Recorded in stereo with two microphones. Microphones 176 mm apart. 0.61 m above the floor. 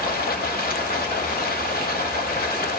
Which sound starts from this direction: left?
Running water, at 0.0 s.